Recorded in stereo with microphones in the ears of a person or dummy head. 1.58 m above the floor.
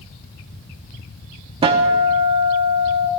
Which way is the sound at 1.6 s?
25° right (ahead or behind).